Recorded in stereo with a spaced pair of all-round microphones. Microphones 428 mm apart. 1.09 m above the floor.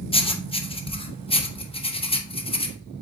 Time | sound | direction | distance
0.1 | writing | 15° left (ahead or behind) | 0.9 m